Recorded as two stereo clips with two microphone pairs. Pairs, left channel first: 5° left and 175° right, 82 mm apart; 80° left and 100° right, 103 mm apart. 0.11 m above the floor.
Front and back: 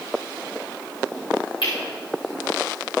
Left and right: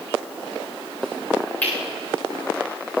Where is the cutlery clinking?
5° left, 8 m.